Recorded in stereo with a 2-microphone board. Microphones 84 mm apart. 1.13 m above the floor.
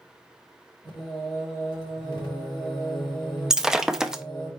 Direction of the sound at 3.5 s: 5° right (ahead or behind).